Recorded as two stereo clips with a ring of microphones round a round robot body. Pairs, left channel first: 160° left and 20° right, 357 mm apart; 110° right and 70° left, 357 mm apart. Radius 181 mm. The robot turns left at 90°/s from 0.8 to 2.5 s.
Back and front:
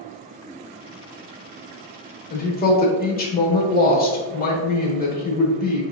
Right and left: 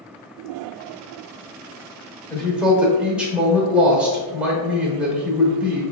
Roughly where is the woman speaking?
Behind.